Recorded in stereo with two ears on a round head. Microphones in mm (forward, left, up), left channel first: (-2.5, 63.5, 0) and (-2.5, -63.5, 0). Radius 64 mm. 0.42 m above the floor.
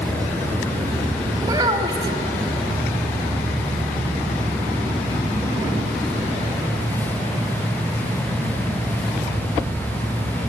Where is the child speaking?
30° right (ahead or behind), 1.2 m.